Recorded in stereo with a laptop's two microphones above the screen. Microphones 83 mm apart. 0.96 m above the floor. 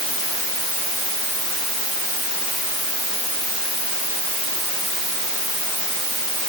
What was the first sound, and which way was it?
Only background noise.